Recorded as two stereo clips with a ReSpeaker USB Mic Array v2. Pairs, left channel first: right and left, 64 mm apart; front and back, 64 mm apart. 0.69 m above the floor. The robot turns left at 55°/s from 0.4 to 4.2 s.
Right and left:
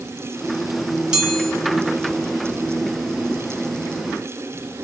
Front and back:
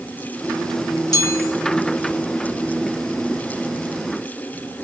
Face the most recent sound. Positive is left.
turn(degrees=-155)